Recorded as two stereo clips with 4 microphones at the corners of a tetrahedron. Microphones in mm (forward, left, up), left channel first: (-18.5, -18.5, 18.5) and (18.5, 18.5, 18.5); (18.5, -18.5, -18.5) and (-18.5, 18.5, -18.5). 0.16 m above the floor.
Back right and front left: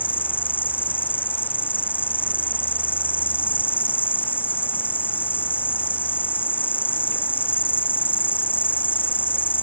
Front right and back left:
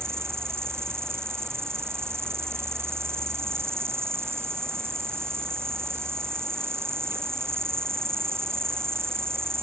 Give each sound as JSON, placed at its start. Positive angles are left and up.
{"t": 0.0, "sound": "an insect", "azimuth_deg": 170}